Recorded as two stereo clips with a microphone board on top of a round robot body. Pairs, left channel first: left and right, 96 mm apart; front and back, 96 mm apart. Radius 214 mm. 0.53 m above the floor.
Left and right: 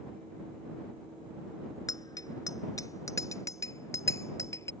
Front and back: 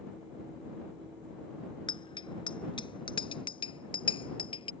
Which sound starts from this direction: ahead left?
A bicycle bell, at 1.9 s.